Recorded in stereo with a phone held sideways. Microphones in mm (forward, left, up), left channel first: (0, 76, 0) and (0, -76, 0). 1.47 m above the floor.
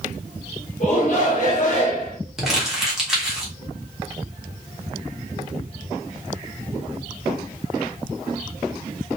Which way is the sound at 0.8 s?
50° left (ahead or behind).